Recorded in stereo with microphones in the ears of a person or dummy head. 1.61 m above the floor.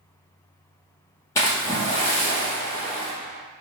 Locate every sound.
1.4 s a splash: 15° left (ahead or behind), 1.1 m